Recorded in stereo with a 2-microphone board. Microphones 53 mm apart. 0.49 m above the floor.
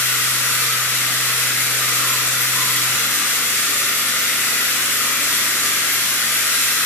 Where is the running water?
45° left (ahead or behind), 0.9 m.